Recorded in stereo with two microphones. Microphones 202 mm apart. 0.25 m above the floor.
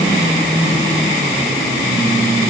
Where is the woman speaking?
I don't hear a woman speaking.